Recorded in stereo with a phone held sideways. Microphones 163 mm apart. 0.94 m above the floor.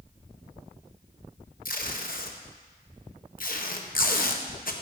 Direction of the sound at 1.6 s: 60° left (ahead or behind).